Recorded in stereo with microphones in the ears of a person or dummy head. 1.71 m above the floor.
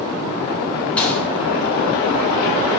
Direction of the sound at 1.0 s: 10° left (ahead or behind).